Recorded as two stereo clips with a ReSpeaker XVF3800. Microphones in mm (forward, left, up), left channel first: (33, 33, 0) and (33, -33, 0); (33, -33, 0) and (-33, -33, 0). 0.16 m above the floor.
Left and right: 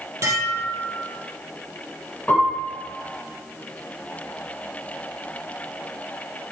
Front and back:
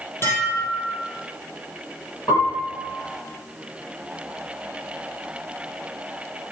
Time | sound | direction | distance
0.2 | dishes clattering | 50° right | 3 m
2.3 | a piano | 25° left | 5 m